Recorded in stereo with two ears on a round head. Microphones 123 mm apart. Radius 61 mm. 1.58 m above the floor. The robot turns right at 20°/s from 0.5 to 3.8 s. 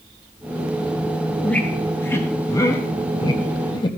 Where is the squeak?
10° left (ahead or behind), 1.0 m; by 4.0 s 35° left (ahead or behind), 1.0 m.